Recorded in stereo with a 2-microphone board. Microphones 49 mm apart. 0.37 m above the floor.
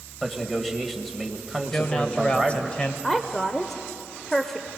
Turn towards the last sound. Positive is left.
turn(degrees=10)  # may be behind; listen again after turning